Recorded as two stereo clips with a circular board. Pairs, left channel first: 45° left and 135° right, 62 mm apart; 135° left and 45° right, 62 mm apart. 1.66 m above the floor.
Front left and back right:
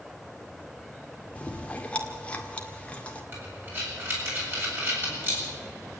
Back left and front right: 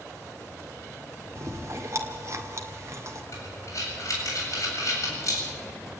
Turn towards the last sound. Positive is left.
turn(degrees=170)